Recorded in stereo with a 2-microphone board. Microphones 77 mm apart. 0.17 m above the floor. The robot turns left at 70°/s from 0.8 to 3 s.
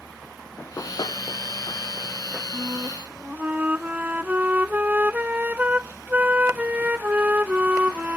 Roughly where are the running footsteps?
Left.